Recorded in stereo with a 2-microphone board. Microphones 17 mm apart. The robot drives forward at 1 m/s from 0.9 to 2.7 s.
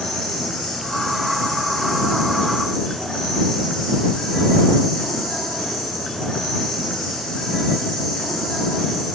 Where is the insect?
80° left, 7.5 m; by 9.1 s 70° left (ahead or behind), 8 m.